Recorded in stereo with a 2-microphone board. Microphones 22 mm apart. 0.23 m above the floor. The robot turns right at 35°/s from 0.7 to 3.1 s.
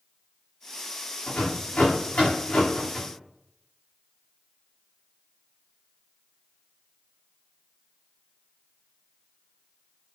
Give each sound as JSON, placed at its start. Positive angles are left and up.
{"t": 1.3, "sound": "a rattle", "side_deg": 80, "distance_m": 8.0}